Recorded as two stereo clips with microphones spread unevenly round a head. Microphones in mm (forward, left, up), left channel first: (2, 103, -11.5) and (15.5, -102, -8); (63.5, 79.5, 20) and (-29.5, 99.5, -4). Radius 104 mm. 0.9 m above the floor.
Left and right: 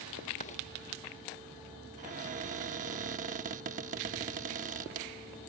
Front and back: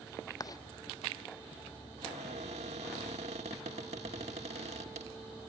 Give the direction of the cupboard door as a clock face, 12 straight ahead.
5 o'clock.